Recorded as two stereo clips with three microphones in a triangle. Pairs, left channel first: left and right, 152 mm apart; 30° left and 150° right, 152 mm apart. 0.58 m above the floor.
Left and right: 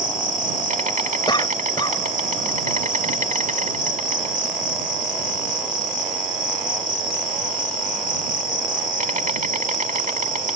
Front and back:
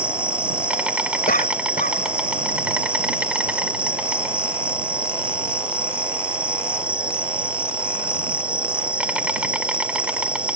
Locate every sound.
0.0 s an insect: 70° right
1.3 s a cough: 30° left